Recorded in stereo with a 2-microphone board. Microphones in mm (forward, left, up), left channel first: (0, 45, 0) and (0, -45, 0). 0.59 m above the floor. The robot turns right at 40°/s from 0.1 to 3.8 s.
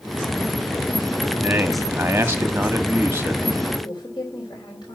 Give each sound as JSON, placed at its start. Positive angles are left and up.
{"t": 1.4, "sound": "a man speaking", "side_deg": -15, "distance_m": 1.1}
{"t": 3.8, "sound": "a woman speaking", "side_deg": 55, "distance_m": 3.5}